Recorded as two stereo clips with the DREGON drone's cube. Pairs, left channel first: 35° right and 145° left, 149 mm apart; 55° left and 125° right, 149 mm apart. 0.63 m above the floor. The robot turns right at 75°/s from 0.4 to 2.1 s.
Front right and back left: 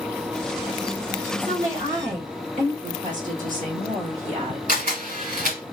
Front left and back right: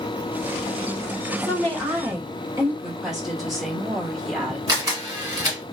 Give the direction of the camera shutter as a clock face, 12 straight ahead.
6 o'clock.